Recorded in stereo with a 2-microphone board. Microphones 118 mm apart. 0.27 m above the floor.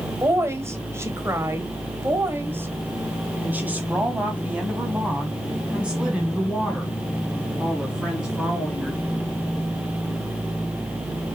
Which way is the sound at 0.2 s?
20° right (ahead or behind).